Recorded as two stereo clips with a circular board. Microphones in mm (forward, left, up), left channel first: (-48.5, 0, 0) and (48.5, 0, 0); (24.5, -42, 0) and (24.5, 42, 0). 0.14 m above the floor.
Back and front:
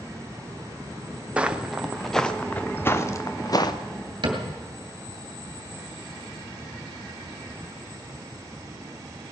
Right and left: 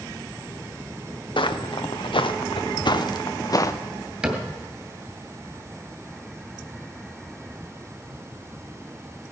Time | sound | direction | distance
1.4 | footsteps | 75° right | 1.4 m
4.2 | a cupboard door | 15° left | 2.5 m